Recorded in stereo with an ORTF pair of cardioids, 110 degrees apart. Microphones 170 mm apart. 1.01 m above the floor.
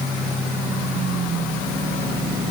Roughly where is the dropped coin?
No dropped coin in this recording.